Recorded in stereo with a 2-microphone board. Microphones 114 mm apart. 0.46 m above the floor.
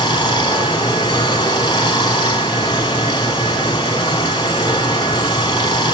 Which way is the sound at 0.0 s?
45° left (ahead or behind).